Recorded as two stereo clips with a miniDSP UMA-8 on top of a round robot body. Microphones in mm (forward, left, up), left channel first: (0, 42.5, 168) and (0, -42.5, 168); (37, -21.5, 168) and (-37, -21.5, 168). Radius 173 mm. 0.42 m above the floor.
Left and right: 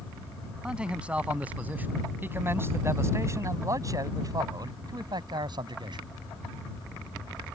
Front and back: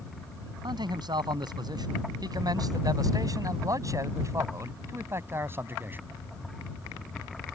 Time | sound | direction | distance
0.6 | a man speaking | 165° right | ?